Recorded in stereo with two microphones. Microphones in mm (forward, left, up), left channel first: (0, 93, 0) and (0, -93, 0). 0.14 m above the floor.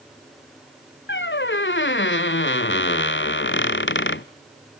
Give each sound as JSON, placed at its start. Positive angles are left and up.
{"t": 1.1, "sound": "a squeak", "side_deg": 80, "distance_m": 0.5}